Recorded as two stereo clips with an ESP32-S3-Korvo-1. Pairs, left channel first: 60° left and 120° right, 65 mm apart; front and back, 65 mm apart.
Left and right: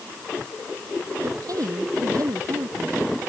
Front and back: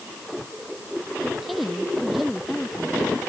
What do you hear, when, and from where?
1.2 s a woman speaking: 95° right; by 3.0 s 90° right